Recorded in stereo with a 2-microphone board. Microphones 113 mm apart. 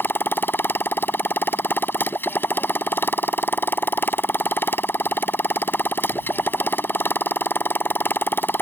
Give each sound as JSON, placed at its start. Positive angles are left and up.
{"t": 0.0, "sound": "a motorcycle", "side_deg": 20}